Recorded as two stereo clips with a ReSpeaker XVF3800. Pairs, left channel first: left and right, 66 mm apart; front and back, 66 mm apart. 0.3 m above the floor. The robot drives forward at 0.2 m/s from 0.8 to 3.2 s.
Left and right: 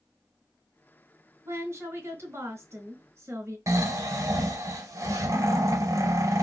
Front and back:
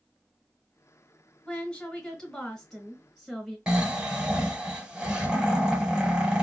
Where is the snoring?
105° right, 0.7 m.